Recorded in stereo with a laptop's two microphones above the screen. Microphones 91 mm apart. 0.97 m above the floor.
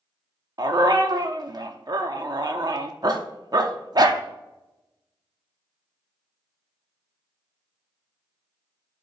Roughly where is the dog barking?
Right.